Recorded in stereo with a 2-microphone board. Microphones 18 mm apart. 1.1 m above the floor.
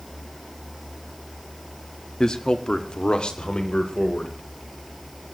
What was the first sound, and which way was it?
A man speaking, 40° left (ahead or behind).